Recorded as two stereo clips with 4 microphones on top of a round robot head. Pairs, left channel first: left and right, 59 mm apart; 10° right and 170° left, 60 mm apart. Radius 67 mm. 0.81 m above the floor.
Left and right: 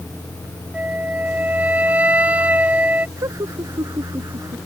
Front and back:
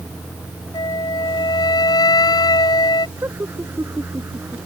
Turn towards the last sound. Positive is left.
turn(degrees=-125)